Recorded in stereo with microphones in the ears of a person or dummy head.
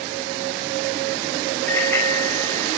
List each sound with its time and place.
1.7 s a bicycle bell: 10° left (ahead or behind), 5.5 m